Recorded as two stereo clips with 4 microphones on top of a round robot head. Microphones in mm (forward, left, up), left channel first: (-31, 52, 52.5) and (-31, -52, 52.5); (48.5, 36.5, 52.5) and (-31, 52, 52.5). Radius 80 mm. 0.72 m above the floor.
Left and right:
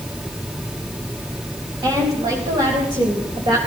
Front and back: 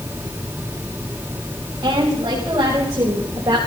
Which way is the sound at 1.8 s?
135° right.